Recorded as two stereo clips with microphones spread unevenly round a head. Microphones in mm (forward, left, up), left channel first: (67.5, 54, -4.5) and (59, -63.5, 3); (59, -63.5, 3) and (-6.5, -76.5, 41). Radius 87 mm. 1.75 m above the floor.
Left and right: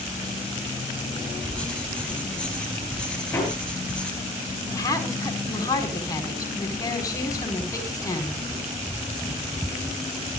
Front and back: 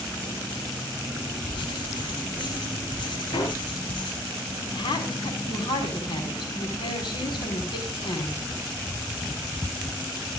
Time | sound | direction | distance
1.5 | writing | 5° left | 5 m
3.3 | hammering | 15° left | 9.5 m
4.7 | a woman speaking | 25° left | 5 m